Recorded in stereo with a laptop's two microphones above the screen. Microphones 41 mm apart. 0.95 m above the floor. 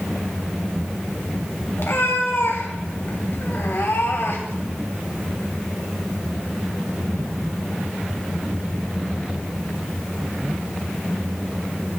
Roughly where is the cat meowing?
Left.